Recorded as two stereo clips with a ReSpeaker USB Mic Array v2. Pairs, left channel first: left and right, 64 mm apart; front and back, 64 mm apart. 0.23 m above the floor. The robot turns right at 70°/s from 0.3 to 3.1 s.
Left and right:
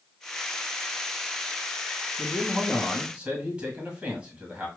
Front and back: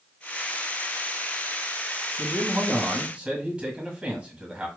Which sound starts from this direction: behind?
A man speaking, at 2.2 s.